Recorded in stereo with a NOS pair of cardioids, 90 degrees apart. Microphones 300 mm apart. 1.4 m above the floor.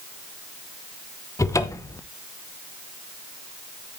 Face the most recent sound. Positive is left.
turn(degrees=10)